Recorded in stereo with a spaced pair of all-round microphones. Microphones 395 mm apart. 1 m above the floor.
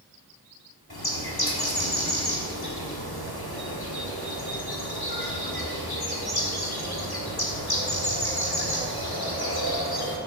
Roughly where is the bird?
Left.